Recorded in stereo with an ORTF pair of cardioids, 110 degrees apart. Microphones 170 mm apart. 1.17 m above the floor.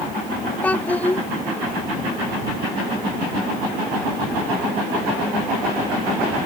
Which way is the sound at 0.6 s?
10° left.